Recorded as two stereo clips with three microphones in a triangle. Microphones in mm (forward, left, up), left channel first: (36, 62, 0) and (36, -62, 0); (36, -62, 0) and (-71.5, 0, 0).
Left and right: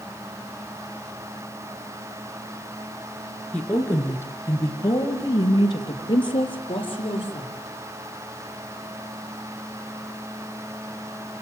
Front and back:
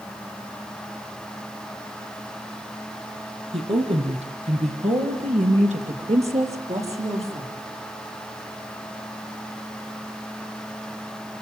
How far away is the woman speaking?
About 3.5 m.